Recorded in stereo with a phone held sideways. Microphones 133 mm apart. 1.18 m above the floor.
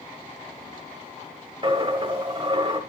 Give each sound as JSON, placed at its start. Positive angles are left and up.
{"t": 1.6, "sound": "a dropped coin", "side_deg": -35, "distance_m": 1.3}